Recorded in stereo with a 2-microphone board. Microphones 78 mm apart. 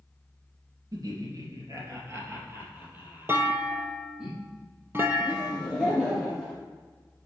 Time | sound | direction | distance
0.9 | laughter | 55° right (ahead or behind) | 2.5 m
3.3 | a clunk | 30° right (ahead or behind) | 0.8 m
5.2 | laughter | 5° left (ahead or behind) | 2.5 m